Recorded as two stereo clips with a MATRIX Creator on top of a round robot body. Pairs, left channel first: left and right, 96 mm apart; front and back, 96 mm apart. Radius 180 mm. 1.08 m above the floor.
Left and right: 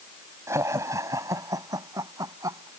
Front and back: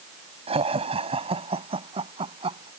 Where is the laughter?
155° right; by 2.7 s 145° right.